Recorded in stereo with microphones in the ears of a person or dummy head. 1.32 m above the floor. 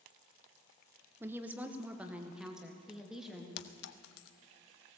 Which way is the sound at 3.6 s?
65° left (ahead or behind).